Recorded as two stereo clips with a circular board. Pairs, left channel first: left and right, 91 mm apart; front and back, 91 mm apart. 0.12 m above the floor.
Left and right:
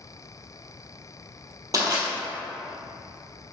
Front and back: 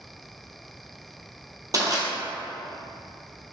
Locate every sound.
1.7 s crushing: 140° right, 1.6 m